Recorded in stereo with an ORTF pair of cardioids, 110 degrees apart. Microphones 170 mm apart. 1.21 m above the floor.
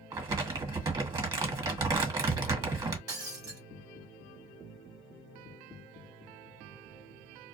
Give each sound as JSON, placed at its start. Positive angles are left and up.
{"t": 0.1, "sound": "crumpling", "azimuth_deg": -25, "distance_m": 1.2}
{"t": 3.1, "sound": "breaking glass", "azimuth_deg": -20, "distance_m": 1.2}